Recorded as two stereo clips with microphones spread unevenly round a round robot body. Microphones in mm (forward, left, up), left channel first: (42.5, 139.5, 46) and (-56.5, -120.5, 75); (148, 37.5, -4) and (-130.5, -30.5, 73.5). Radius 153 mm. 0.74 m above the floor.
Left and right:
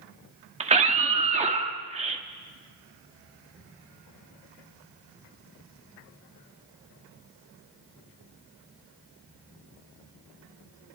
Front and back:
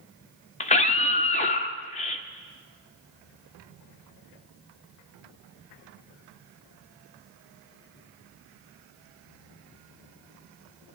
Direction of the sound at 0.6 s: 40° right.